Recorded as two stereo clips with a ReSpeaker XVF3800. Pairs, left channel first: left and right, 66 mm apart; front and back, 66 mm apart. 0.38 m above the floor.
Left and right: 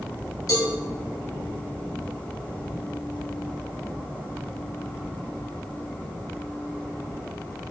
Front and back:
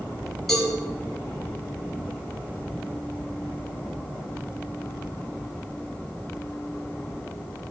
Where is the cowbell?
90° left, 3.5 m.